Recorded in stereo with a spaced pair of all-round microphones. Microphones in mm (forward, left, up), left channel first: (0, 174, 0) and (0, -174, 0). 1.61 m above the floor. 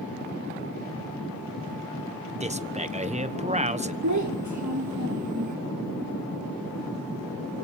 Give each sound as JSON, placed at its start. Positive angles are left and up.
{"t": 2.4, "sound": "a man speaking", "side_deg": -20, "distance_m": 1.3}
{"t": 4.0, "sound": "a child speaking", "side_deg": -55, "distance_m": 1.2}